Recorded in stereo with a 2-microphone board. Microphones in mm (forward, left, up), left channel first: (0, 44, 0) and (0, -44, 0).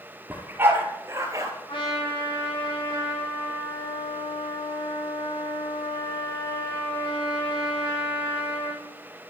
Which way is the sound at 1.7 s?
85° left.